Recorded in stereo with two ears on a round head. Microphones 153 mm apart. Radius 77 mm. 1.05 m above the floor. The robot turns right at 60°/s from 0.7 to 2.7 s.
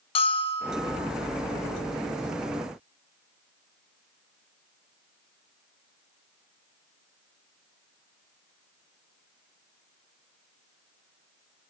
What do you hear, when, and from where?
0.1 s a bell: 35° left (ahead or behind), 0.6 m; by 1.0 s 20° left (ahead or behind), 0.6 m